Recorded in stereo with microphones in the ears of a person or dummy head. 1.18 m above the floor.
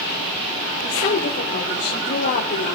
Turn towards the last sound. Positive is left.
turn(degrees=55)  # may be behind; listen again after turning